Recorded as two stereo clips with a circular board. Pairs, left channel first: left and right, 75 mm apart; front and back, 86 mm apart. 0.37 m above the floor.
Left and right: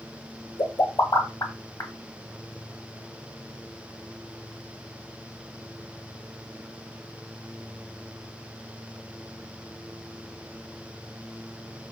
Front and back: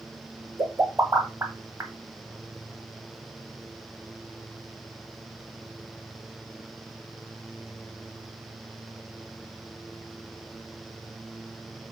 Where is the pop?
125° left, 0.8 m.